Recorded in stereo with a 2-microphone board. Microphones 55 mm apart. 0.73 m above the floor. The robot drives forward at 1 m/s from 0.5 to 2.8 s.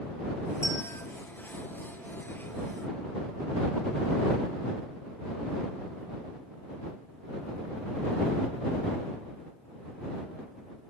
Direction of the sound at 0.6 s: 60° left (ahead or behind).